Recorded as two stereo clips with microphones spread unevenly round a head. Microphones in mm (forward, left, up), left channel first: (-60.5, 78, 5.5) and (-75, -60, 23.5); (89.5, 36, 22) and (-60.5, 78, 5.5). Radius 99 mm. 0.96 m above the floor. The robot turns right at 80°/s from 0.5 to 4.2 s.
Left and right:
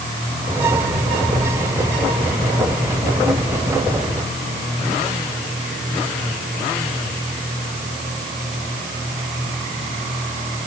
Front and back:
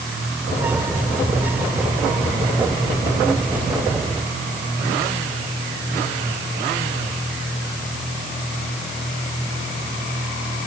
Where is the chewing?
I don't hear chewing.